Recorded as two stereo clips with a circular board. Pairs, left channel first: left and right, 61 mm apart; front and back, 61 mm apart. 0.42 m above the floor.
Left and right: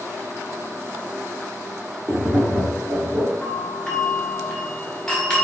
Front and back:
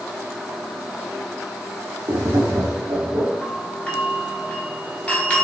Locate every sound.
2.1 s tapping: 155° right, 1.0 m
3.4 s a doorbell: 25° left, 1.4 m